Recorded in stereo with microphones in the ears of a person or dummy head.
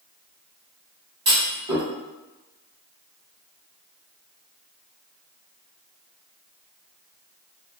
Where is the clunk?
20° right (ahead or behind), 1.4 m.